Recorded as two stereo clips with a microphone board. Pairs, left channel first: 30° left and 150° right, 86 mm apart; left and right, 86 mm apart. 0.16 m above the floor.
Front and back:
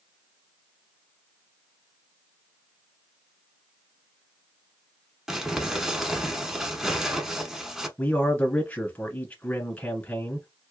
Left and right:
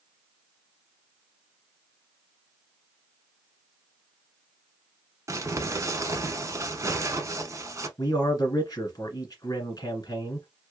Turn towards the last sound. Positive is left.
turn(degrees=95)